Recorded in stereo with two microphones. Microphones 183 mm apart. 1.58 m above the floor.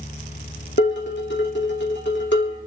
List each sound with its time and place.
0.8 s dishes clattering: 75° left (ahead or behind), 3 m